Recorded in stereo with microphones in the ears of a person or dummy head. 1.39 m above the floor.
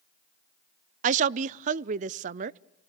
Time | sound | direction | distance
1.0 | a woman speaking | 40° right (ahead or behind) | 0.6 m